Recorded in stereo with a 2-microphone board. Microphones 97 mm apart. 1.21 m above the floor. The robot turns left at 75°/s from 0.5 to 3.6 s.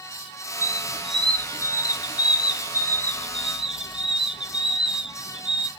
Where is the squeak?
145° right, 0.5 m; by 5.7 s 10° right, 0.5 m.